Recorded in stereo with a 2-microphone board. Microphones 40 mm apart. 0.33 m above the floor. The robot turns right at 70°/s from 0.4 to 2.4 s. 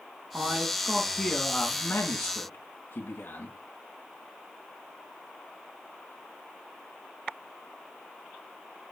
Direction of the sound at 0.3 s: 40° right.